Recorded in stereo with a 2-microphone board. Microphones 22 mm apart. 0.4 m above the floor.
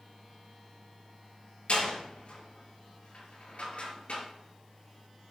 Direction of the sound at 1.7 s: 65° left (ahead or behind).